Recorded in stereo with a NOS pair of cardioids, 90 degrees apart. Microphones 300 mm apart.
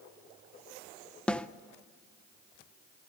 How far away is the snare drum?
About 0.5 m.